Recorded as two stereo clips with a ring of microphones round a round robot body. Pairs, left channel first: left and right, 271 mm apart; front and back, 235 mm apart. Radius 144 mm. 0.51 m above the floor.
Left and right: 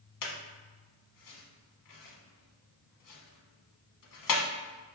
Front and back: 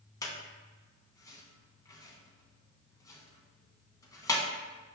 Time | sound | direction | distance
0.2 | a squeak | 75° left | 0.7 m